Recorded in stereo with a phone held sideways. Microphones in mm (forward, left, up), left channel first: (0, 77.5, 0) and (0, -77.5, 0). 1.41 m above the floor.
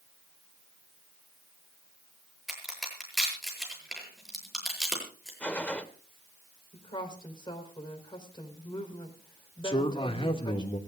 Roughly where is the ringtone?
No ringtone in this recording.